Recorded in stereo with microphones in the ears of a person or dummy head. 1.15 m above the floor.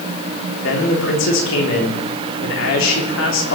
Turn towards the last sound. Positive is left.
turn(degrees=65)  # may be behind; listen again after turning